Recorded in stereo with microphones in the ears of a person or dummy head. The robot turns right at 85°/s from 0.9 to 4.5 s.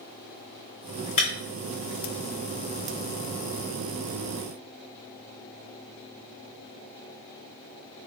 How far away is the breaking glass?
About 2 m.